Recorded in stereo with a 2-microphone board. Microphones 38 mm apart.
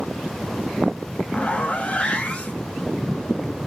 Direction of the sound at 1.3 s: 25° left (ahead or behind).